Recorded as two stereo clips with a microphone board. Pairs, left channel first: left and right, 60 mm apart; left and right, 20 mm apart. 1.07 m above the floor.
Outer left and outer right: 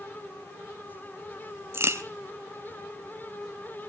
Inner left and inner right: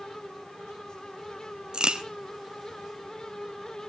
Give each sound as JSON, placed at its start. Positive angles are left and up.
{"t": 1.7, "sound": "a crack", "side_deg": -45, "distance_m": 1.3}